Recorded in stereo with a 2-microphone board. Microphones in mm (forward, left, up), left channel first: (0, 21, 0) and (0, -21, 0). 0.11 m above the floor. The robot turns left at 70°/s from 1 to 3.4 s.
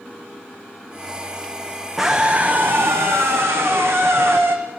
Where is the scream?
Straight ahead, 6 m; by 4.6 s 100° right, 6 m.